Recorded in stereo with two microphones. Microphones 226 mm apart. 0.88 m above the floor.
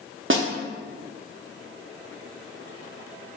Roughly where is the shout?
I don't hear a shout.